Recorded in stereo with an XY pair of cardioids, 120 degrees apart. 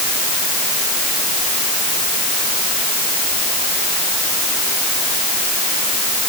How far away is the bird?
No bird in this recording.